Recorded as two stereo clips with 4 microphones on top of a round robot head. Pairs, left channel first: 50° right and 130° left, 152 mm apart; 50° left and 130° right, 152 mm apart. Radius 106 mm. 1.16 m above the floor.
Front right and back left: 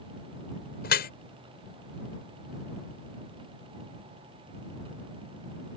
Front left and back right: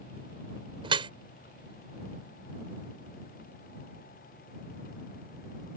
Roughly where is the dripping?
Right.